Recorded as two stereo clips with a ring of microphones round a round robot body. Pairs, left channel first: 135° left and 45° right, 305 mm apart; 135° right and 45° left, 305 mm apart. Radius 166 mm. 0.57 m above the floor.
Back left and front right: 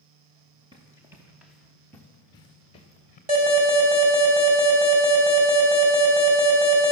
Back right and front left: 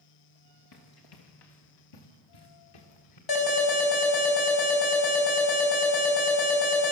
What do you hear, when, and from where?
0.7 s running footsteps: 120° right, 3.5 m; by 3.2 s 155° right, 4 m
3.3 s an alarm: 115° right, 5.5 m